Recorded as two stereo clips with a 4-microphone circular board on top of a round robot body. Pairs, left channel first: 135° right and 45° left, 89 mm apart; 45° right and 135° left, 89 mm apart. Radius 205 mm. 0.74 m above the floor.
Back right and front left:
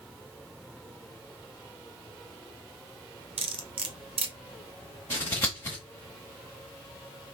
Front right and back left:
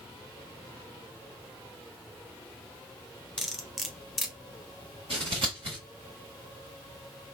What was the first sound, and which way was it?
Cutlery clinking, 45° left.